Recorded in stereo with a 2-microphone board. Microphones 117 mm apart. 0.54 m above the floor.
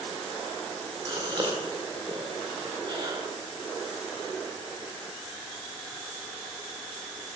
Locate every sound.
1.1 s a gasp: 40° right (ahead or behind), 1.9 m